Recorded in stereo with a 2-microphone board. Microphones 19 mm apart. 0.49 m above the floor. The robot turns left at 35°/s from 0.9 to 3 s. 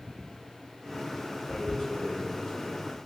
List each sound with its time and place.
1.5 s tearing paper: 75° left (ahead or behind), 1.7 m; by 2.7 s 45° left (ahead or behind), 1.7 m